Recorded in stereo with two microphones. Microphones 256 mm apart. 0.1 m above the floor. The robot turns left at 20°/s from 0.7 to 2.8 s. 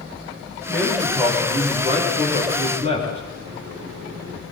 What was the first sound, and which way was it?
A man speaking, 5° left.